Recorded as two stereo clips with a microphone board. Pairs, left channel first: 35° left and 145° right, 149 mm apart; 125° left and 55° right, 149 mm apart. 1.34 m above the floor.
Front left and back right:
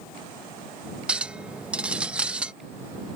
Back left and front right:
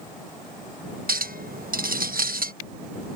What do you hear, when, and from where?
1.1 s a clink: 65° right